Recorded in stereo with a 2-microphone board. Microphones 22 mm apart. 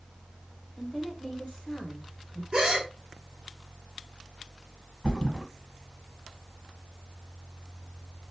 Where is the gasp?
30° right (ahead or behind), 1.2 m.